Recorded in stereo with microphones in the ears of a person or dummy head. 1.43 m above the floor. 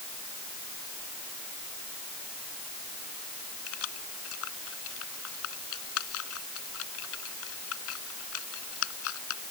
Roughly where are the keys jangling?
Left.